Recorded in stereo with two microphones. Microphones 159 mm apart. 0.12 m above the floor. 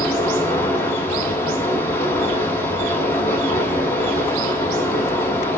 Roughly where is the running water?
Centre.